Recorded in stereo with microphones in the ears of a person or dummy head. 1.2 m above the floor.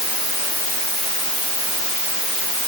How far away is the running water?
I don't hear running water.